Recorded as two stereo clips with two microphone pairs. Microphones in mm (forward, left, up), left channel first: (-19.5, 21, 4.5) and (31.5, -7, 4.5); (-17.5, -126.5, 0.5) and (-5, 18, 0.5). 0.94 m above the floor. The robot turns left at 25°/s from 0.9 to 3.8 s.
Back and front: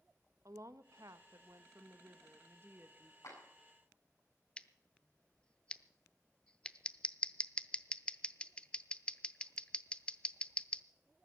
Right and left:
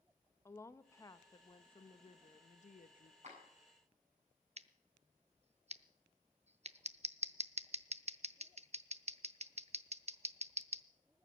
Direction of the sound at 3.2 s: 125° left.